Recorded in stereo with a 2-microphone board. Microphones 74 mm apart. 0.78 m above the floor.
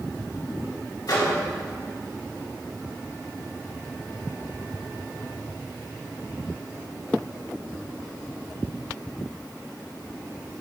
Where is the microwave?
60° left (ahead or behind), 3 m.